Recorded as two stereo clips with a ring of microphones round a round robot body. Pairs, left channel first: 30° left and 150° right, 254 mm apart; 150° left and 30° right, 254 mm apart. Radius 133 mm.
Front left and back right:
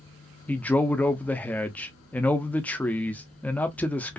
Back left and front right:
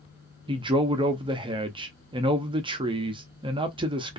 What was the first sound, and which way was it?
A man speaking, 45° right.